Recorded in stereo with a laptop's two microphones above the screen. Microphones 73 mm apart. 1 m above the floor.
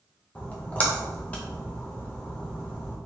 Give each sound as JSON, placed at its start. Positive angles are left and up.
{"t": 0.3, "sound": "a splash", "side_deg": 20, "distance_m": 0.7}